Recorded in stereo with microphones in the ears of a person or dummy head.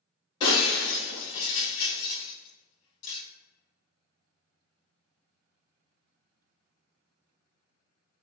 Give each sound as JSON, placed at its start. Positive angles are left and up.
{"t": 0.4, "sound": "breaking glass", "side_deg": 30, "distance_m": 1.6}